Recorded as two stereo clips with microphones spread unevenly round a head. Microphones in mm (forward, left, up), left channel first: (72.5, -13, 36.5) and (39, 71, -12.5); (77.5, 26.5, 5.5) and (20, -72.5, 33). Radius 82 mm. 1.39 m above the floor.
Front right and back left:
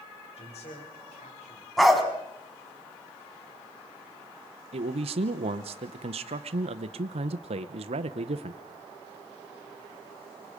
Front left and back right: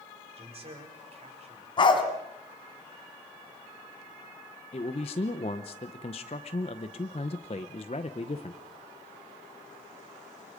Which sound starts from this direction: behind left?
A man speaking, at 4.7 s.